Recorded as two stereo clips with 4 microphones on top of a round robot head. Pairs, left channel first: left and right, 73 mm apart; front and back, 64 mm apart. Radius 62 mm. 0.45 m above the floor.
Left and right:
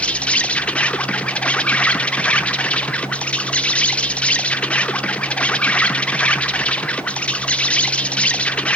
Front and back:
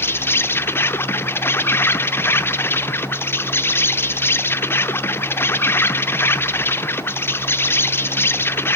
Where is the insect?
25° left, 0.8 m.